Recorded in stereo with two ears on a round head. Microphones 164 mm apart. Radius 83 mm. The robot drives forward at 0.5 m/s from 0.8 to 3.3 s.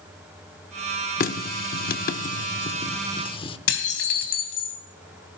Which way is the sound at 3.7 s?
65° left (ahead or behind).